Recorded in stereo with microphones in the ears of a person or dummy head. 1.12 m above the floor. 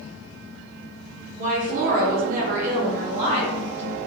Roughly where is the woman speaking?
Right.